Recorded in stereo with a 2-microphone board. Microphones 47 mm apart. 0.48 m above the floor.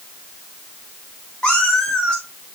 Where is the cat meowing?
10° left (ahead or behind), 4 m.